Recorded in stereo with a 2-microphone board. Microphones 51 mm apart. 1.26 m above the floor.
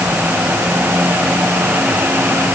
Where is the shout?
No shout in this recording.